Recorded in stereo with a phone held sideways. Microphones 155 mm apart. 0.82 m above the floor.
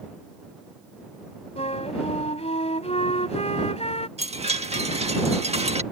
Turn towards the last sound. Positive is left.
turn(degrees=-45)  # may be behind; listen again after turning